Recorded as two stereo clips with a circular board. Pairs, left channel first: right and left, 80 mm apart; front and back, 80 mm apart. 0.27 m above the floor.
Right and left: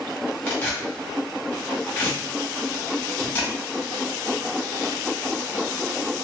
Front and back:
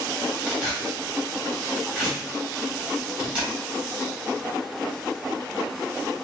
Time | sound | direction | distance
0.5 | tearing paper | 125° right | 1.5 m